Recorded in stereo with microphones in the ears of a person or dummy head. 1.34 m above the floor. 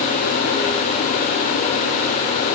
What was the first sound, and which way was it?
Only background noise.